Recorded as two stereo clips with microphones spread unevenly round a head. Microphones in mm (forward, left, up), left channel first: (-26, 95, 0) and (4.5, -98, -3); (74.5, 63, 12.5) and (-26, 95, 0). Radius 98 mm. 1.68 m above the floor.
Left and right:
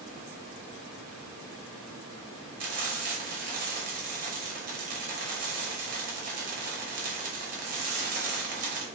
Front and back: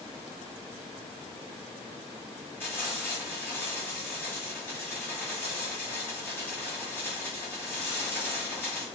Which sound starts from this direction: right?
Frying, at 2.6 s.